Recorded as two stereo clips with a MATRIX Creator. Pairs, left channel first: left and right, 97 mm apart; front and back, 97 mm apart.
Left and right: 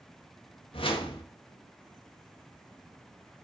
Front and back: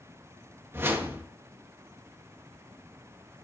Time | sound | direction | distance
0.7 | a whoosh | 115° left | 1.6 m